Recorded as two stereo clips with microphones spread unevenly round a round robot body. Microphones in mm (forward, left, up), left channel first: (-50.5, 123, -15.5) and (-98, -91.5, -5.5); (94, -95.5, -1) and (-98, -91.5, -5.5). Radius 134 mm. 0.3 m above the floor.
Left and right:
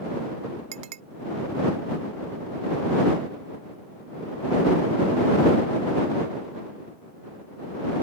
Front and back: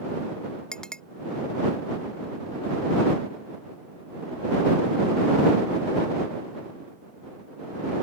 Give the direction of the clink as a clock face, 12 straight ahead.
3 o'clock.